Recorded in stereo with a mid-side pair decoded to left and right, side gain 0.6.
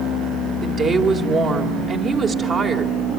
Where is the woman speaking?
40° right, 3.5 m.